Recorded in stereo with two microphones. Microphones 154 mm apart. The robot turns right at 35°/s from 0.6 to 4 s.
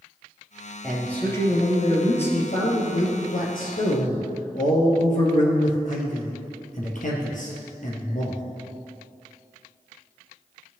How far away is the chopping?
I don't hear chopping.